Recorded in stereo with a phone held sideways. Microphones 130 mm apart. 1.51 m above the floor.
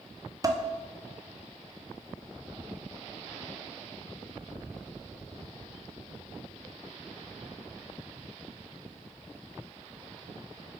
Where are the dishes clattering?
25° right (ahead or behind), 0.7 m.